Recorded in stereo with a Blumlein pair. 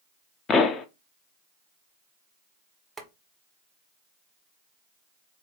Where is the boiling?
10° right, 1.1 m.